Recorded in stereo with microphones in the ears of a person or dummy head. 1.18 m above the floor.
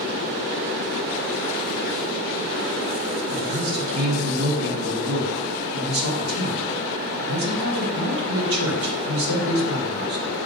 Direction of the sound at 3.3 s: 75° right (ahead or behind).